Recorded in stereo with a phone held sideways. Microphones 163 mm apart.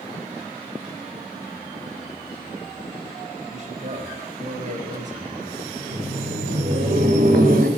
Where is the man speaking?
50° right (ahead or behind), 4 m.